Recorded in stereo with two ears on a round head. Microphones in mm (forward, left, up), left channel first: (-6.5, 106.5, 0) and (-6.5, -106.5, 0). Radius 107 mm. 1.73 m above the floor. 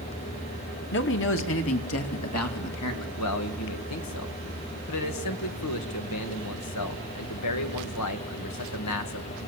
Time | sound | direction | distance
0.9 | a man speaking | 50° left (ahead or behind) | 2 m
3.2 | a man speaking | 85° left | 2 m